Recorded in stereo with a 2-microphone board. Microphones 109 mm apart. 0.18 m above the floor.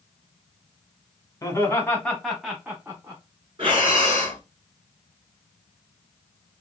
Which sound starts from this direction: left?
Laughter, at 1.4 s.